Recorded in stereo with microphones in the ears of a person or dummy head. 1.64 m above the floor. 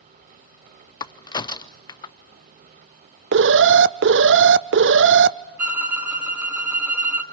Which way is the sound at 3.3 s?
60° right (ahead or behind).